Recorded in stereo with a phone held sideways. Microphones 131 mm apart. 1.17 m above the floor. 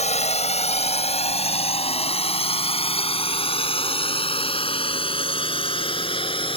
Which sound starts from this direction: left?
A drone, at 0.0 s.